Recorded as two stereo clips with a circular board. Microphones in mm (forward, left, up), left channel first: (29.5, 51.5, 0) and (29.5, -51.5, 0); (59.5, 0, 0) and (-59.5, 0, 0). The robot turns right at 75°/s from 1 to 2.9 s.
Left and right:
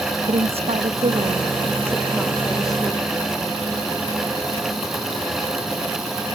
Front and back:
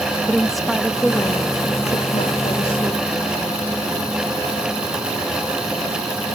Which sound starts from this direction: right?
A woman speaking, at 0.3 s.